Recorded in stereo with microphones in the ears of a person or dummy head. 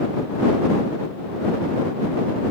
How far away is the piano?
No piano in this recording.